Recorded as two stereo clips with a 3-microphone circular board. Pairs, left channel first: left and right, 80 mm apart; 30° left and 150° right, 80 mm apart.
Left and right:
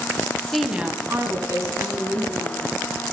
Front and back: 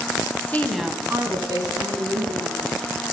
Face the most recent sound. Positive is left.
turn(degrees=-130)